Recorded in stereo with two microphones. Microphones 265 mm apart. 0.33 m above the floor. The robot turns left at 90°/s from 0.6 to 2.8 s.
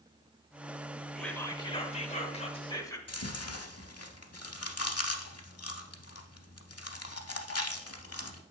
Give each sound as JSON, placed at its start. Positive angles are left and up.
{"t": 1.1, "sound": "whispering", "side_deg": 0, "distance_m": 0.9}
{"t": 3.1, "sound": "chewing", "side_deg": 65, "distance_m": 0.7}